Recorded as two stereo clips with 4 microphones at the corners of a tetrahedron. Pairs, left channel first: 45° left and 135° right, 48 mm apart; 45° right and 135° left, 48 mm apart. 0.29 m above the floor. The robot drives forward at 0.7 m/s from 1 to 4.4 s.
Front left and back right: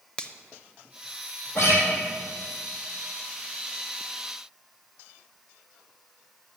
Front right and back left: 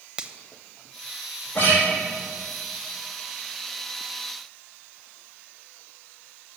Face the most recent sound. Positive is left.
turn(degrees=10)